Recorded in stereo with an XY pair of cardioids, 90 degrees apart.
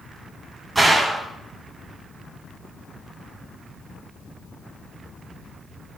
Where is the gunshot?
25° right, 2.5 m.